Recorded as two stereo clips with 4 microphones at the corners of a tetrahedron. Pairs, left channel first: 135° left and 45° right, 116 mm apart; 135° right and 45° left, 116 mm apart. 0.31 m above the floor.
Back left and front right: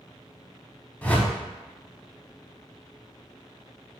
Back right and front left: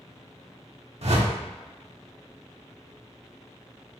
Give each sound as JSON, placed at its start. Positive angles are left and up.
{"t": 1.0, "sound": "a whoosh", "azimuth_deg": 60, "distance_m": 0.6}